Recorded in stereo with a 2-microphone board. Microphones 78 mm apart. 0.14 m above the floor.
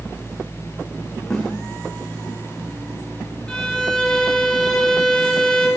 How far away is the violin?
About 3.5 m.